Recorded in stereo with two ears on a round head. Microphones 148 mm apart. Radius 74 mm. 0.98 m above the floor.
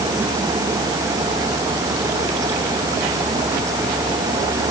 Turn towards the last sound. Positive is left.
No sound to turn to.